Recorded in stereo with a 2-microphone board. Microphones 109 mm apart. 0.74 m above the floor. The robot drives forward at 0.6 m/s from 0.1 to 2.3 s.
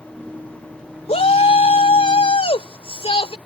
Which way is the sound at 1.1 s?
75° left (ahead or behind).